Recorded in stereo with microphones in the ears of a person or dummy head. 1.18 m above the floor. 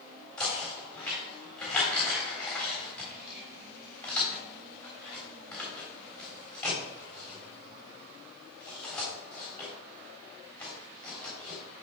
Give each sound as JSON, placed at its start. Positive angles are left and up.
{"t": 0.4, "sound": "knocking", "side_deg": 0, "distance_m": 3.5}